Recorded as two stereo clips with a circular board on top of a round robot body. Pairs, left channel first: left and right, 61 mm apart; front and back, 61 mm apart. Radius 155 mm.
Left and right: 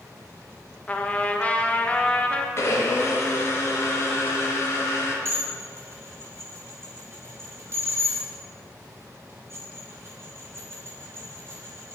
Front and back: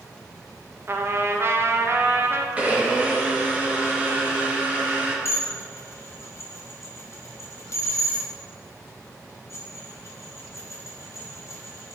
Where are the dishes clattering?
45° right, 1.7 m.